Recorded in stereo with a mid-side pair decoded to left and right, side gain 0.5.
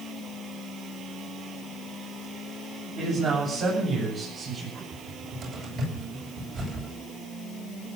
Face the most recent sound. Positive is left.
turn(degrees=-60)